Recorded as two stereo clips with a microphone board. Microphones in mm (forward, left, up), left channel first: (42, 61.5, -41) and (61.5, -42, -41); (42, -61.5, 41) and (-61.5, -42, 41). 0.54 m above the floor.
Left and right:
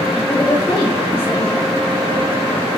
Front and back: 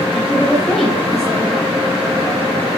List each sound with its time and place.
0.1 s a woman speaking: 80° left, 1.7 m